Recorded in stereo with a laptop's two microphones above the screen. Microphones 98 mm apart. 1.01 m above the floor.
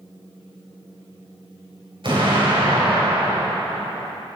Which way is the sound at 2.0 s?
60° right (ahead or behind).